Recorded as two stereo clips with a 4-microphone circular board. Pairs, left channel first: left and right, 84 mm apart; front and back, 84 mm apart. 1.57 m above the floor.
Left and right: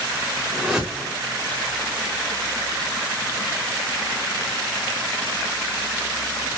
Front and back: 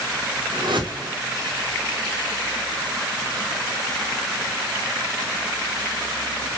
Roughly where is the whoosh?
Behind.